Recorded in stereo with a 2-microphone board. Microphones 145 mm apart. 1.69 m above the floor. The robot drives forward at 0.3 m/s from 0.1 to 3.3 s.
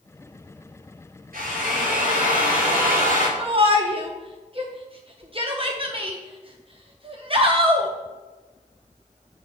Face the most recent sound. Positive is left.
turn(degrees=-40)  # may be behind; listen again after turning